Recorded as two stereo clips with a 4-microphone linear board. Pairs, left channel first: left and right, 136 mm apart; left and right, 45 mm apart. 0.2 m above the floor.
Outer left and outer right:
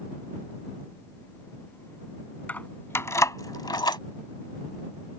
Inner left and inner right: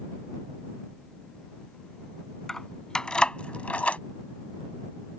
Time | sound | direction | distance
2.5 | keys jangling | 10° left (ahead or behind) | ?